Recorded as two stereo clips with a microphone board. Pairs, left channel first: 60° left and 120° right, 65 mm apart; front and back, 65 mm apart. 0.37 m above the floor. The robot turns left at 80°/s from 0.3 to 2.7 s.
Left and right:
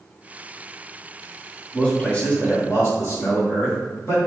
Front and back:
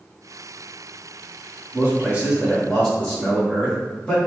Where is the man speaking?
145° left, 1.8 m; by 4.2 s 70° left, 1.8 m.